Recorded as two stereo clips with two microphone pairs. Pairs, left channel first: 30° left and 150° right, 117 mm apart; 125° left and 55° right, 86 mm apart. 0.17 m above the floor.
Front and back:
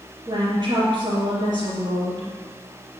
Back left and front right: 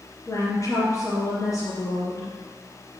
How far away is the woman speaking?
About 2.5 m.